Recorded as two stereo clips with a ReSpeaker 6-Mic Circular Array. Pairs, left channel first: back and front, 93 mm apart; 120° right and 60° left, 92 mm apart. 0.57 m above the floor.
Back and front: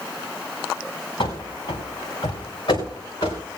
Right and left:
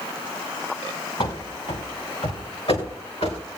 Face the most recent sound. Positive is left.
turn(degrees=-130)